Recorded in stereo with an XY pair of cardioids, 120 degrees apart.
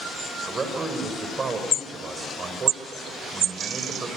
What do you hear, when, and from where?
0.5 s a man speaking: 30° right, 5 m